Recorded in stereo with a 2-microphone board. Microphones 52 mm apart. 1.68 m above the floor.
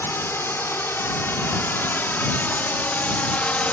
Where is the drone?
50° left (ahead or behind); by 3.7 s 25° left (ahead or behind).